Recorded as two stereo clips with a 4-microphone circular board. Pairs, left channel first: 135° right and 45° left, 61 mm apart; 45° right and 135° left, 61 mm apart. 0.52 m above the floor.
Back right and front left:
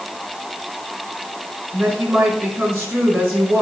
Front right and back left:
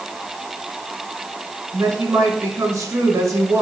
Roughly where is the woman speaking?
Left.